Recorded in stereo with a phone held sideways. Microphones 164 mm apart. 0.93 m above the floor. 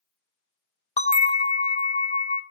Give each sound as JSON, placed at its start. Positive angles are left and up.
{"t": 1.0, "sound": "a bell", "side_deg": 45, "distance_m": 0.5}